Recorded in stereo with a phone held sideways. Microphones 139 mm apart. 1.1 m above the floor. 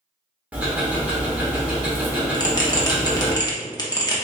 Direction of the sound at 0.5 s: 10° right (ahead or behind).